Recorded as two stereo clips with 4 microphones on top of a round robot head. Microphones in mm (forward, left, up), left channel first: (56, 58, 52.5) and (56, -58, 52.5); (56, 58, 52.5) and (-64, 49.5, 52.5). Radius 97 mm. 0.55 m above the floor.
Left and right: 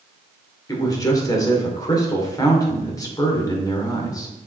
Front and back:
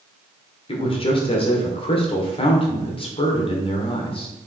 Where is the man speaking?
35° left, 2.5 m.